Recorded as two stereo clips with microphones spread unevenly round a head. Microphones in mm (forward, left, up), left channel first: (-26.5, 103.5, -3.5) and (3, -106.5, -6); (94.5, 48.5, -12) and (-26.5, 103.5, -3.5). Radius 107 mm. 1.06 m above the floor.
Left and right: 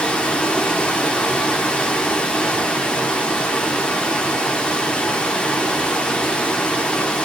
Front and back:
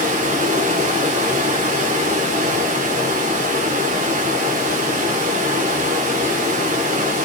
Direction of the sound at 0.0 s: 175° right.